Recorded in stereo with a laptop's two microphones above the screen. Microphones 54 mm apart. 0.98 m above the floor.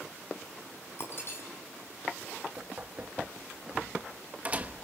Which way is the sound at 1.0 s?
50° left (ahead or behind).